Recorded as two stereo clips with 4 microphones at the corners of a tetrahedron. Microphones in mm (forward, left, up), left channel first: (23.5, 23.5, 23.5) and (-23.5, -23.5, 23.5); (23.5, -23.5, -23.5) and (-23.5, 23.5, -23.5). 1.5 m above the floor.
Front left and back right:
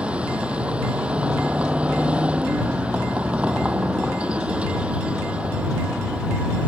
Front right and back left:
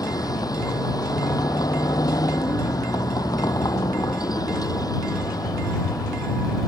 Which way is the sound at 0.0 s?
60° right.